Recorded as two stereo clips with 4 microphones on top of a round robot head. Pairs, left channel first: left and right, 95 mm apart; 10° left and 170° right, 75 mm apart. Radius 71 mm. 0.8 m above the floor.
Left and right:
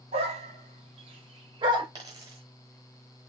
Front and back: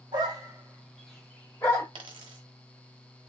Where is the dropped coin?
150° right, 0.8 m.